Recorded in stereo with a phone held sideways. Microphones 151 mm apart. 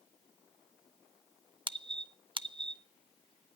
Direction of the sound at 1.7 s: 35° right (ahead or behind).